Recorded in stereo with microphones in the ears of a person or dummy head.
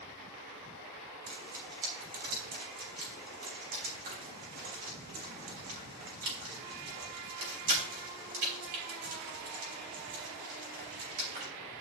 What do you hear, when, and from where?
1.3 s frying: 50° right (ahead or behind), 3.5 m